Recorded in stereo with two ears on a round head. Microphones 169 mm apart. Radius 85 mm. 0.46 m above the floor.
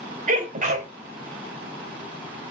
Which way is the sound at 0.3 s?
40° right (ahead or behind).